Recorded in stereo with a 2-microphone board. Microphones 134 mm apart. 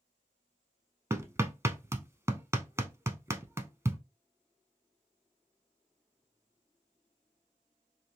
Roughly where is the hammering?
Right.